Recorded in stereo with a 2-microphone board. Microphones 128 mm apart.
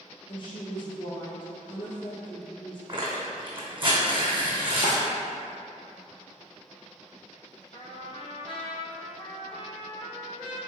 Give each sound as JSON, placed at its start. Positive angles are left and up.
{"t": 0.3, "sound": "a woman speaking", "side_deg": 40, "distance_m": 1.7}
{"t": 2.9, "sound": "tearing paper", "side_deg": -40, "distance_m": 1.6}
{"t": 4.8, "sound": "a drawer", "side_deg": 60, "distance_m": 1.1}
{"t": 7.7, "sound": "a trumpet", "side_deg": 45, "distance_m": 0.8}